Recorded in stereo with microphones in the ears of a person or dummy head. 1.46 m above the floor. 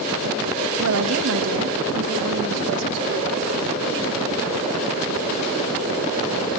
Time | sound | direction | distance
0.8 | a woman speaking | 85° right | 1.9 m